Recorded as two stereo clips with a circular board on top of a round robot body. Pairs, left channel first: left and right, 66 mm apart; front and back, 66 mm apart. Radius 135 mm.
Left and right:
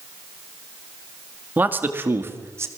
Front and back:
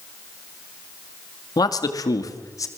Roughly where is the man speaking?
Ahead right.